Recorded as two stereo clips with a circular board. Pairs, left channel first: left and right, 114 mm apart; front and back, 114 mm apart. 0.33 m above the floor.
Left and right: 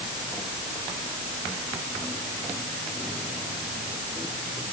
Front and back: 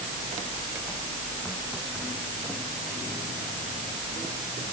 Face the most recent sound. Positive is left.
No sound to turn to.